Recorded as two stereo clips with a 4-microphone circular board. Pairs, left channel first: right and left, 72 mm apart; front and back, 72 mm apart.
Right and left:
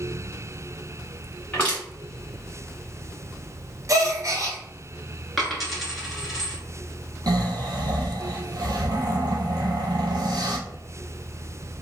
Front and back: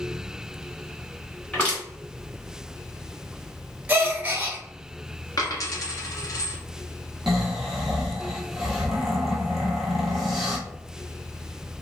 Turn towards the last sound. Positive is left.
turn(degrees=95)